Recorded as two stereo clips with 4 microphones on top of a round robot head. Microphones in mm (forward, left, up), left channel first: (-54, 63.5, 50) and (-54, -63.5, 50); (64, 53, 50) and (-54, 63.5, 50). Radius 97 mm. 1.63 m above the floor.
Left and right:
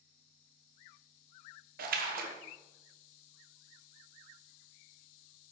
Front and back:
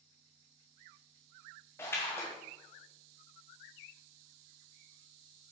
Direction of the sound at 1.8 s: 80° right.